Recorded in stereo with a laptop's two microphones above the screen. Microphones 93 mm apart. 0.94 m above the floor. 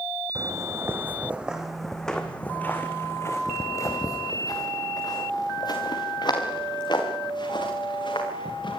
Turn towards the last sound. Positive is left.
turn(degrees=60)  # may be behind; listen again after turning